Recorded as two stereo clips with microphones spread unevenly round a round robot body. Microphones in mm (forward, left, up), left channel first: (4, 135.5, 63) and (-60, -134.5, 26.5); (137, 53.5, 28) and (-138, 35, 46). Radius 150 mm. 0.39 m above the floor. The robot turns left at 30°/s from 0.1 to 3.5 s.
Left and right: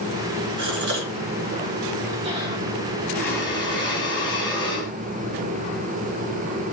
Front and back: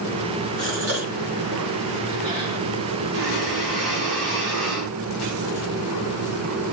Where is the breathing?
160° left, 4.5 m; by 4.9 s 150° left, 4.5 m.